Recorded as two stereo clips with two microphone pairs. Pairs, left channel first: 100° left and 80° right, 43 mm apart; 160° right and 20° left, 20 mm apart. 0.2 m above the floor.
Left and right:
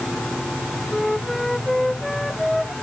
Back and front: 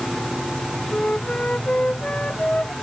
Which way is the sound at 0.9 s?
175° right.